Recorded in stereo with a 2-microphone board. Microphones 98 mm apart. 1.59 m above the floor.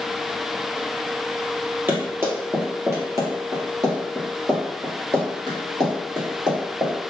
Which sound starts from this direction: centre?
Running footsteps, at 1.9 s.